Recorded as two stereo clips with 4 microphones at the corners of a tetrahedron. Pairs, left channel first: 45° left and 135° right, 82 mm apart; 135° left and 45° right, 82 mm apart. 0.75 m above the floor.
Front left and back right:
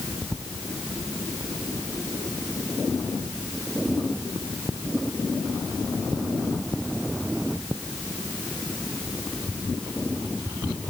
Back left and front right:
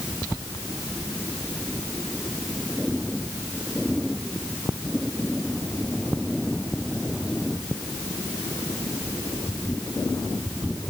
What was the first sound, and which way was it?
Only background noise.